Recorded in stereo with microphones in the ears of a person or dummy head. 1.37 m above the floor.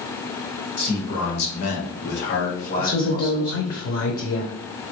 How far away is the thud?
No thud in this recording.